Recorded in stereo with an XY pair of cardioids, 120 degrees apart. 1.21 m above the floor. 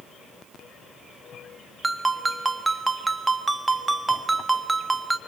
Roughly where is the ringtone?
Ahead.